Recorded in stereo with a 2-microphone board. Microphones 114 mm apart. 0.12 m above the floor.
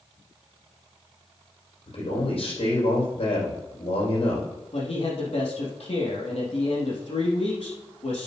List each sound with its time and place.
1.9 s a man speaking: 65° left (ahead or behind), 5 m
4.7 s a man speaking: 70° left (ahead or behind), 3.5 m